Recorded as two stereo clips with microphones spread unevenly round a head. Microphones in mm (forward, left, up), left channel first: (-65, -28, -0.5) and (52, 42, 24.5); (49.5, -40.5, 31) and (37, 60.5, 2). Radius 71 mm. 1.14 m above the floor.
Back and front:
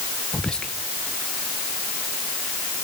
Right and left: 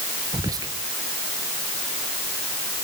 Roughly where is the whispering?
Behind left.